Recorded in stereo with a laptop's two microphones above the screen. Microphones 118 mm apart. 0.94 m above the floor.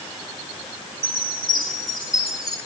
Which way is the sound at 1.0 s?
Centre (ahead or behind).